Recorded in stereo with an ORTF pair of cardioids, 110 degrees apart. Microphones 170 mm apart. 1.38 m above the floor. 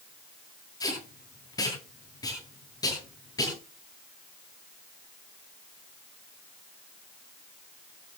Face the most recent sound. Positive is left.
turn(degrees=20)